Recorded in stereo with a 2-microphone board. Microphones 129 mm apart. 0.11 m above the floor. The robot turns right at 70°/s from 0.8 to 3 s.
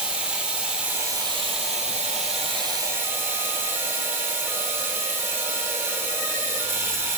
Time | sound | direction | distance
0.0 | running water | 170° right | 1.6 m